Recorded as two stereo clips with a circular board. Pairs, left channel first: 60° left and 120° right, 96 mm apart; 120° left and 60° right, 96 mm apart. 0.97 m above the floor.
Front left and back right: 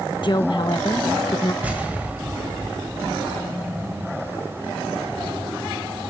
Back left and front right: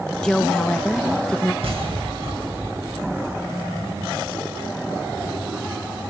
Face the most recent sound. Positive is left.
turn(degrees=-45)